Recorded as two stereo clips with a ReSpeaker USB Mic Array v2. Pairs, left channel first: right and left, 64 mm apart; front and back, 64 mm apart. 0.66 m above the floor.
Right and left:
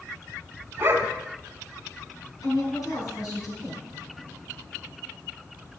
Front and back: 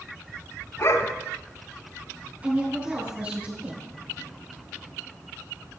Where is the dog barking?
35° left, 1.3 m.